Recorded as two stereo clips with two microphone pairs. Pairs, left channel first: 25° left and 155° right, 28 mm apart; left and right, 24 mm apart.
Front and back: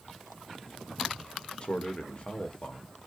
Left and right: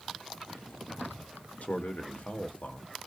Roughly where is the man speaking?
Left.